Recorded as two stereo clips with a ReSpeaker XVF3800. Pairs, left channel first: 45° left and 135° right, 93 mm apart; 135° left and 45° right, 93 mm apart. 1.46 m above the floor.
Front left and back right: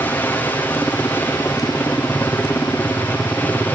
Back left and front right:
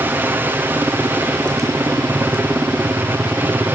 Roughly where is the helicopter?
Ahead.